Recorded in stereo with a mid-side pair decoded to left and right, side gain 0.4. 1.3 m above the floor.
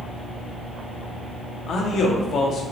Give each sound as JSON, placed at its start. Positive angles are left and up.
{"t": 1.7, "sound": "a man speaking", "azimuth_deg": 65, "distance_m": 0.9}